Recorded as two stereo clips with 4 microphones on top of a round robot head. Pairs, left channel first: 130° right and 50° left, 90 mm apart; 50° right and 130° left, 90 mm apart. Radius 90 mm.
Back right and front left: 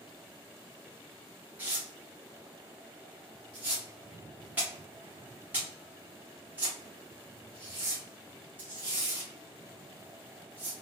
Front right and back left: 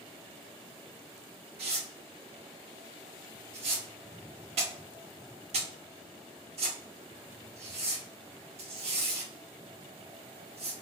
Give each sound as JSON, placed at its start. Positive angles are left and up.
{"t": 1.6, "sound": "tearing paper", "azimuth_deg": 120, "distance_m": 0.8}